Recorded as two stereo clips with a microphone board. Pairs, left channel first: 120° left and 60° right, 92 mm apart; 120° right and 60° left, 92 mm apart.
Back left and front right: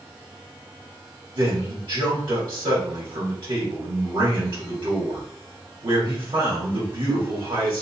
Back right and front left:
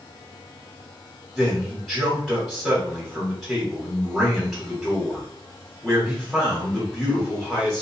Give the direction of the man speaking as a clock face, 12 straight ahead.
1 o'clock.